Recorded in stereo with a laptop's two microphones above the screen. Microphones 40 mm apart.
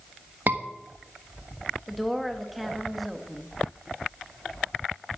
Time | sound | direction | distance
0.5 | a scream | 45° right (ahead or behind) | 1.3 m
1.9 | a woman speaking | centre (ahead or behind) | 1.3 m